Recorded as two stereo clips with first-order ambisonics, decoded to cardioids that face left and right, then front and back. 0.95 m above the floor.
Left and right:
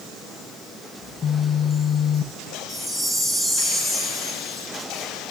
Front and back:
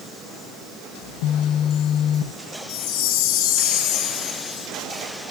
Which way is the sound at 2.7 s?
10° right.